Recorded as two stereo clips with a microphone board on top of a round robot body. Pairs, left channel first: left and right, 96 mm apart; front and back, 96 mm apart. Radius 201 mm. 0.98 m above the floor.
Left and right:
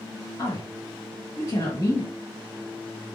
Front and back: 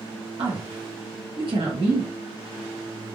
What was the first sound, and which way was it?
A woman speaking, 145° left.